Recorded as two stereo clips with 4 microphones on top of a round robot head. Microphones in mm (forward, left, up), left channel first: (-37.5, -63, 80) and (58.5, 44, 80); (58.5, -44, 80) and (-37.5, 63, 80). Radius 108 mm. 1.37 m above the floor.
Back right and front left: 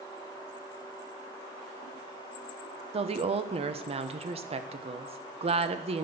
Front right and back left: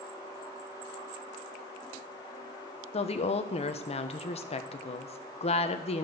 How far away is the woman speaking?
About 1.1 m.